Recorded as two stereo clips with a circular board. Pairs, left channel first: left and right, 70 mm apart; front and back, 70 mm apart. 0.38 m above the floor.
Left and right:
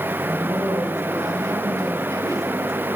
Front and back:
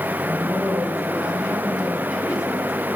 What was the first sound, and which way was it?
A woman speaking, 100° right.